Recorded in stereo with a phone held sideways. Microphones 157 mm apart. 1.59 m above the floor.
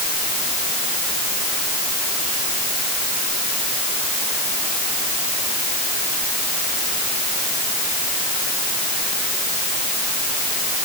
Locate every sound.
Only background noise.